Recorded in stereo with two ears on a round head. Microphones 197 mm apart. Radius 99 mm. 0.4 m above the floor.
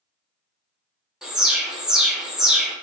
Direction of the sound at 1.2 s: 5° right (ahead or behind).